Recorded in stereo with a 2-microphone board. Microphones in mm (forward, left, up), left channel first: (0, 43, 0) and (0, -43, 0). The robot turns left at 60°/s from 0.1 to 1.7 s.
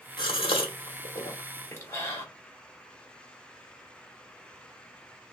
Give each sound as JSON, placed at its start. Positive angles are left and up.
{"t": 0.2, "sound": "a gasp", "side_deg": 60, "distance_m": 1.0}